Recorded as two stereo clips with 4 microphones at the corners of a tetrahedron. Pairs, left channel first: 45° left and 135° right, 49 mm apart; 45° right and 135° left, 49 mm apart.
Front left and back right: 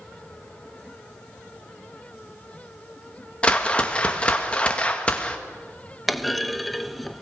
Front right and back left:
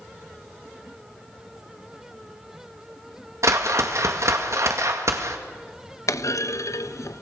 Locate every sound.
3.4 s a whoosh: 115° left, 2 m
6.1 s a clunk: 45° right, 0.6 m